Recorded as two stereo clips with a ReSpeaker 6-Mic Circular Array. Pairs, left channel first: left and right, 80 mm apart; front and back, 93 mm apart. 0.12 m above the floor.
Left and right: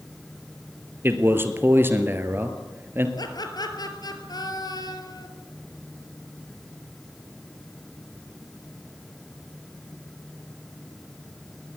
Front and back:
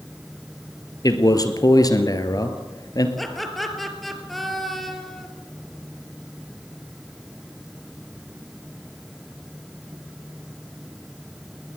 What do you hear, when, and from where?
1.0 s a man speaking: 35° right, 2.0 m
3.2 s laughter: 90° left, 3 m